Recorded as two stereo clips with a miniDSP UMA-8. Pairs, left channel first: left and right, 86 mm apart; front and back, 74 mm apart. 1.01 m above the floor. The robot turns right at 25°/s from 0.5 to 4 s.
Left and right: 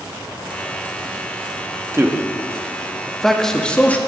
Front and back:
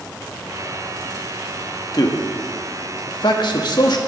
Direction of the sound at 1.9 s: 30° right.